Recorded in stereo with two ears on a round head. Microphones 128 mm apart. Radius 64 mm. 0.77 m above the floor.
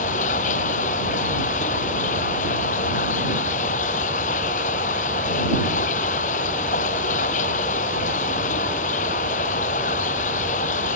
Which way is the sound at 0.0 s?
55° left (ahead or behind).